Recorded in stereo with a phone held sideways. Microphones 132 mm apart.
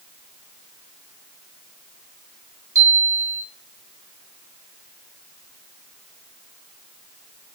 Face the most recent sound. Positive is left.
turn(degrees=-20)  # may be behind; listen again after turning